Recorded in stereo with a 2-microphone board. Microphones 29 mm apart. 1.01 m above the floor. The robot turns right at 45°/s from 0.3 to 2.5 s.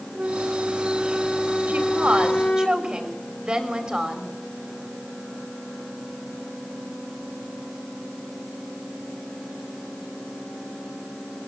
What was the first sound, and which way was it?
A flute, 50° right.